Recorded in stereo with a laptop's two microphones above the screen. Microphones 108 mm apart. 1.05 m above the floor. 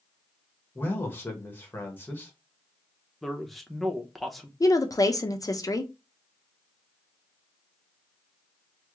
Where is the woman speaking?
35° left (ahead or behind), 0.6 m.